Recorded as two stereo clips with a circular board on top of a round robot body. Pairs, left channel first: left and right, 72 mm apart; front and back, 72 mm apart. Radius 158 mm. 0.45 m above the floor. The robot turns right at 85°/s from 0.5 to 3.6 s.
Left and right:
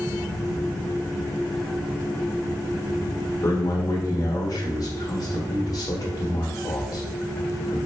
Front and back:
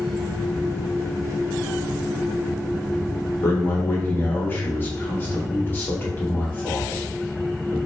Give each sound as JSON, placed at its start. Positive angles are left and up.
{"t": 3.4, "sound": "a man speaking", "azimuth_deg": 45, "distance_m": 1.6}